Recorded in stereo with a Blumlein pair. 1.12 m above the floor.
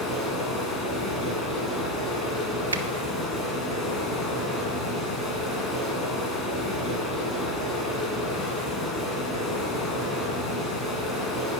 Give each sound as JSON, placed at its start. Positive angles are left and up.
{"t": 0.0, "sound": "running water", "azimuth_deg": 10, "distance_m": 3.0}
{"t": 2.7, "sound": "a finger snap", "azimuth_deg": -70, "distance_m": 0.9}